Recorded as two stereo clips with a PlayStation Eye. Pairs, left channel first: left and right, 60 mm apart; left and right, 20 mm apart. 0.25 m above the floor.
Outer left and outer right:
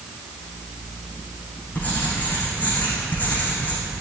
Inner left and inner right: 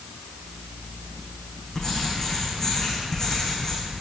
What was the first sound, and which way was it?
Writing, 25° left (ahead or behind).